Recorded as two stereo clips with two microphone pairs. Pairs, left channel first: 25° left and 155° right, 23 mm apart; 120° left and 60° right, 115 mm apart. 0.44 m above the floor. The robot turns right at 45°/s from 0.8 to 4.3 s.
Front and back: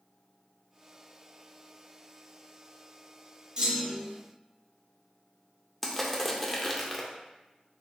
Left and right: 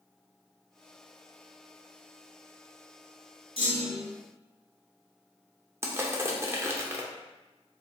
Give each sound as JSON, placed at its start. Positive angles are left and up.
{"t": 3.6, "sound": "a clunk", "azimuth_deg": 155, "distance_m": 1.2}
{"t": 5.8, "sound": "crushing", "azimuth_deg": -45, "distance_m": 0.5}